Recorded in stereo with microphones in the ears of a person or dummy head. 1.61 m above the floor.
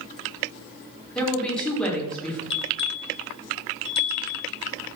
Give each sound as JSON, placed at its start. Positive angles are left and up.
{"t": 1.1, "sound": "a woman speaking", "side_deg": 10, "distance_m": 2.0}
{"t": 2.5, "sound": "a bell", "side_deg": 60, "distance_m": 1.3}